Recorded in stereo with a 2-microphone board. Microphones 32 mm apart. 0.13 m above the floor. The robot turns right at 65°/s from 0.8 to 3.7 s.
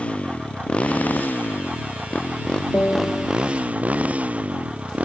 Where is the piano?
75° left; by 3.3 s 110° left.